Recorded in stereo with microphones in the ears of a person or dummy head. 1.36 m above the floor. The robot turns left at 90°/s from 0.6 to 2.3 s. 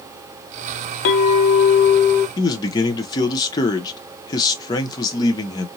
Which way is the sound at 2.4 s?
20° left (ahead or behind).